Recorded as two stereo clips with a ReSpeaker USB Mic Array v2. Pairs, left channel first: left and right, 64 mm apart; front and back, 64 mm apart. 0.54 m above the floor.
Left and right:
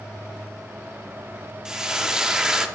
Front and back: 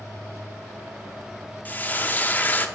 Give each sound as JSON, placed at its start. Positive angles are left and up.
{"t": 1.6, "sound": "frying", "azimuth_deg": -20, "distance_m": 0.7}